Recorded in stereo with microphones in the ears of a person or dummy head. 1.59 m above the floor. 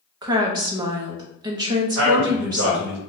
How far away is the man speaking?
About 1.1 m.